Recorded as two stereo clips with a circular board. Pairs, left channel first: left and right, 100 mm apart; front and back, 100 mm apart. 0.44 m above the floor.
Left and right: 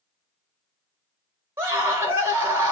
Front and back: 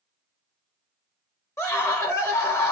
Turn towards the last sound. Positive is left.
turn(degrees=-40)